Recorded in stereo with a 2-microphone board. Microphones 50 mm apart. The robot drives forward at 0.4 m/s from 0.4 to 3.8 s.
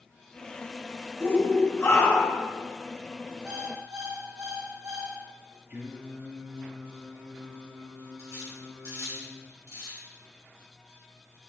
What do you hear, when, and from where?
1.2 s a shout: 45° left (ahead or behind), 2.0 m; by 2.5 s 55° left (ahead or behind), 1.7 m
3.5 s an alarm clock: 75° right (ahead or behind), 3 m; by 5.2 s 80° right, 3 m
5.7 s singing: 35° right (ahead or behind), 2.5 m
8.2 s cutlery clinking: 70° right (ahead or behind), 3 m